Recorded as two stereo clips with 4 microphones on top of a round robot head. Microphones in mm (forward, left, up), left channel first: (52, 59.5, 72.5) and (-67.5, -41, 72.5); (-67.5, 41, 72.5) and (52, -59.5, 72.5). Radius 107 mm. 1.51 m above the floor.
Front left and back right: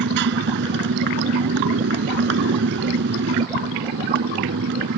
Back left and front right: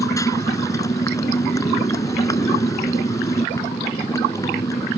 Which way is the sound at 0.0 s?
150° right.